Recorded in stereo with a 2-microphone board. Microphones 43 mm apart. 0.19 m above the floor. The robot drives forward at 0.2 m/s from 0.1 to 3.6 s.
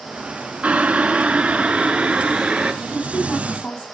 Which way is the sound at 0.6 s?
30° right (ahead or behind).